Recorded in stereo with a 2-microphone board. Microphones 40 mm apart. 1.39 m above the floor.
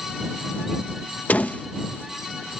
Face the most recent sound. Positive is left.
turn(degrees=45)  # may be behind; listen again after turning